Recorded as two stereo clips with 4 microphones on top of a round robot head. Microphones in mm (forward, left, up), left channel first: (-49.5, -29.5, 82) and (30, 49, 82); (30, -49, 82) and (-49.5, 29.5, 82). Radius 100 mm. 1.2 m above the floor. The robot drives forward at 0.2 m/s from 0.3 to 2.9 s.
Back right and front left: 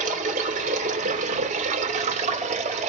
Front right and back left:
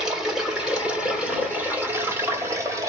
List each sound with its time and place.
0.0 s running water: 50° left, 1.4 m; by 2.9 s 70° left, 1.2 m